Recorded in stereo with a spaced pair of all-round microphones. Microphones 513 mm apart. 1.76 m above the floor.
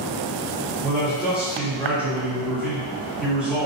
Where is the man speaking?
Centre (ahead or behind), 1.3 m.